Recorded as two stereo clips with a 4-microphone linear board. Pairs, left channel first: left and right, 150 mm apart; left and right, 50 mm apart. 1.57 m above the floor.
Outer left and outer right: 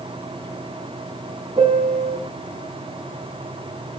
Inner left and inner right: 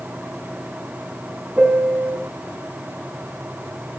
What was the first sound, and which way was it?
A piano, 35° right (ahead or behind).